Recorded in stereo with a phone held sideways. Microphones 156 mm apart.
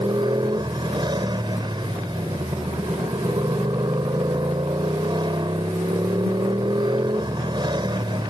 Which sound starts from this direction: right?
A motorcycle, at 0.0 s.